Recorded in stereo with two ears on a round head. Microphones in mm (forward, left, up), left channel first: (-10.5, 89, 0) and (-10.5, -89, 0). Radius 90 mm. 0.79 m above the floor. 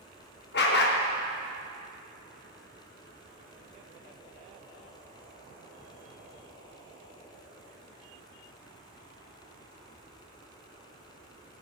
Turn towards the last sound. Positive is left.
turn(degrees=55)  # may be behind; listen again after turning